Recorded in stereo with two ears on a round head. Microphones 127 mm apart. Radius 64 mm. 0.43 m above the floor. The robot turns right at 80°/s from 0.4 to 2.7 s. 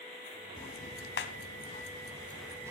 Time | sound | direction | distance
0.6 | ticking | 30° left (ahead or behind) | 1.1 m